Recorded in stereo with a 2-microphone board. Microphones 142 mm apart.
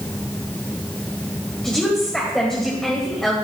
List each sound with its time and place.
1.6 s a woman speaking: 5° left (ahead or behind), 1.7 m